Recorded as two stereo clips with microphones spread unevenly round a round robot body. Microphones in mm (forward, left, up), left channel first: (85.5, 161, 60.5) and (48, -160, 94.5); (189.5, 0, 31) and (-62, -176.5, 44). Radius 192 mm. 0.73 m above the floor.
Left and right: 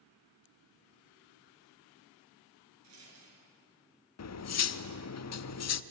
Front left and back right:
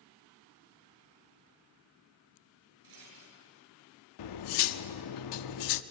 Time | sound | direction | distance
2.8 | a rattle | 145° right | 6.5 m
4.2 | cutlery clinking | 45° left | 0.8 m